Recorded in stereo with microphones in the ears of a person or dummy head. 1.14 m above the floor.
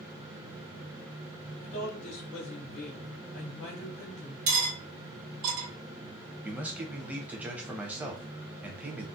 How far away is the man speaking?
About 0.7 m.